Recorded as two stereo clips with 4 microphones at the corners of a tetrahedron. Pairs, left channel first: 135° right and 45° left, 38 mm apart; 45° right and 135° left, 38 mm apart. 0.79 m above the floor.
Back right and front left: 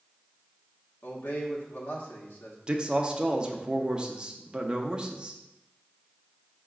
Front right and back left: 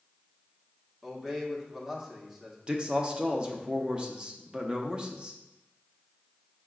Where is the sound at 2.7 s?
95° left, 0.6 m.